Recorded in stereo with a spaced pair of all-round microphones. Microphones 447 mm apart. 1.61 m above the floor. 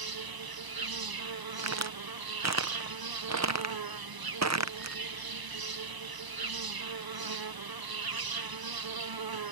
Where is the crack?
40° right (ahead or behind).